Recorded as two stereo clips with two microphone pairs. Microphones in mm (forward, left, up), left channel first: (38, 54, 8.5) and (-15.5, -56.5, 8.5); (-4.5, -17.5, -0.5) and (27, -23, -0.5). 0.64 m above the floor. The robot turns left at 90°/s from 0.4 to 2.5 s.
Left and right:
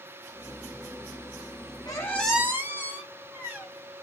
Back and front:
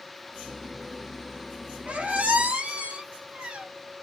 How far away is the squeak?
About 0.8 m.